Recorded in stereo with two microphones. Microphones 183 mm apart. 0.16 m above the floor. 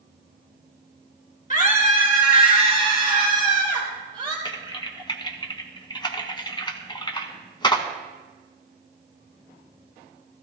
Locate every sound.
1.5 s a scream: 45° left (ahead or behind), 2.5 m
4.5 s typing on a keyboard: 25° left (ahead or behind), 1.2 m